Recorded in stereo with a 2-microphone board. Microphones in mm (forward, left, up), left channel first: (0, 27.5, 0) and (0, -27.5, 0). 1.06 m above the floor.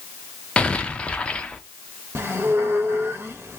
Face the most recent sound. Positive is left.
turn(degrees=-45)  # may be behind; listen again after turning